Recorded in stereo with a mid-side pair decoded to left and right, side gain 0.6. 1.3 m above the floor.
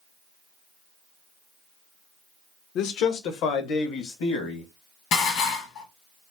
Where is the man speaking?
65° left, 0.6 m; by 4.7 s 80° left, 1.6 m.